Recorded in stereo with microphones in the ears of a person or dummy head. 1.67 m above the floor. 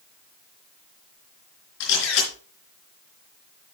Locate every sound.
1.8 s a camera shutter: 65° left (ahead or behind), 4 m